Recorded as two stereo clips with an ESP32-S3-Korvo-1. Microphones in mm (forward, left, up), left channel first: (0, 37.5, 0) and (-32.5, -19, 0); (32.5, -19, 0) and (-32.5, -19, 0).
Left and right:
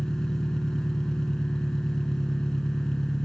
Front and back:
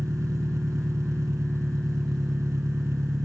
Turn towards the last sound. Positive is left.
turn(degrees=140)